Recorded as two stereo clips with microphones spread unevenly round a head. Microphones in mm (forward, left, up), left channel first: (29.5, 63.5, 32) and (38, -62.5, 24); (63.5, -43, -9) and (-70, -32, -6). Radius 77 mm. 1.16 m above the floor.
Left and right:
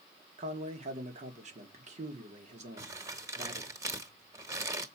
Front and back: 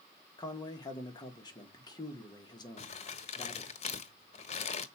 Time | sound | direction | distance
0.4 | a man speaking | 65° right | 1.9 m
2.8 | crumpling | 25° right | 1.3 m